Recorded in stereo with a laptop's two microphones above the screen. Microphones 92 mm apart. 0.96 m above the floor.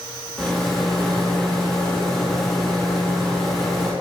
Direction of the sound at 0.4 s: 5° left (ahead or behind).